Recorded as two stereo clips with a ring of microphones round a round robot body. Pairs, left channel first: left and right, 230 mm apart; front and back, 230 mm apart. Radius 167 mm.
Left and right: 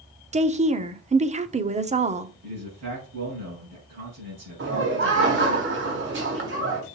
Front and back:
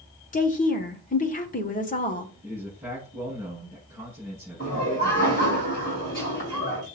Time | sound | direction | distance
0.3 | a woman speaking | 40° right | 0.9 m
2.4 | a man speaking | 100° right | 4.5 m
4.6 | laughter | 60° right | 3 m